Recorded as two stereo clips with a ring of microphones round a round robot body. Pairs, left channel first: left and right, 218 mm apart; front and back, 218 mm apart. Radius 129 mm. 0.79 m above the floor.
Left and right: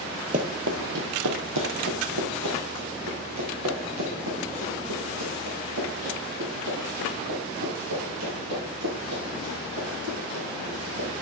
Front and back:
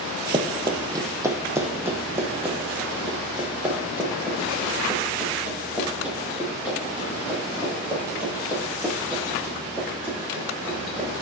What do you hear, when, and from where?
0.3 s running footsteps: 125° right, 0.9 m; by 11.1 s 95° right, 10.5 m